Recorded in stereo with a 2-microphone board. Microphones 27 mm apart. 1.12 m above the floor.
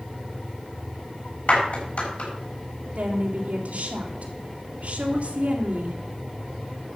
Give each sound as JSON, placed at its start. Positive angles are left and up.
{"t": 1.5, "sound": "a clap", "side_deg": 65, "distance_m": 6.5}
{"t": 3.0, "sound": "a woman speaking", "side_deg": -55, "distance_m": 3.0}